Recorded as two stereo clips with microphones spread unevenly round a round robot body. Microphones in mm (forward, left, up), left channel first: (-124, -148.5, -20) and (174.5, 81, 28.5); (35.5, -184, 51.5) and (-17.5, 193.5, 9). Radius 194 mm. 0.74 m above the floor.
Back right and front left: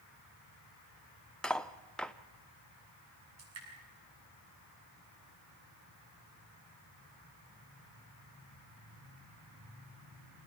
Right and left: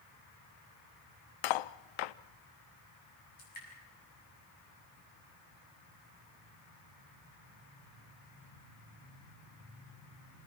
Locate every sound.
1.4 s cutlery clinking: 55° right, 0.6 m
3.4 s dripping: 15° right, 7 m